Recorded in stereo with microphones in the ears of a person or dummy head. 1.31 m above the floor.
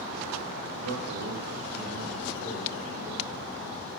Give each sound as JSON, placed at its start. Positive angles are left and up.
{"t": 0.8, "sound": "a man speaking", "side_deg": -80, "distance_m": 1.0}